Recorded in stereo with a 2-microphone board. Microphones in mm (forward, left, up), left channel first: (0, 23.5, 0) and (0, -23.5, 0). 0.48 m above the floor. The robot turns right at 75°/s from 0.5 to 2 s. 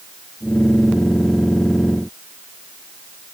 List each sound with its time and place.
Only background noise.